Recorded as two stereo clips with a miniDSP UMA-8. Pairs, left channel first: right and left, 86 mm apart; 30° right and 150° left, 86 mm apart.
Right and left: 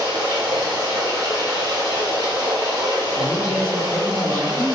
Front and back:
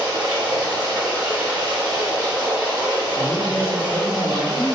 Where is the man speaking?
170° left, 1.6 m.